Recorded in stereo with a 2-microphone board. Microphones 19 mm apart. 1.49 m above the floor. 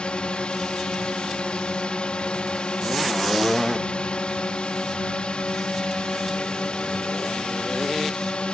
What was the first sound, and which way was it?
A drone, 70° left (ahead or behind).